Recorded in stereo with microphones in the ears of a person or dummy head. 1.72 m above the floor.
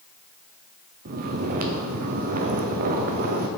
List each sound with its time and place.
1.1 s snoring: 45° right (ahead or behind), 0.9 m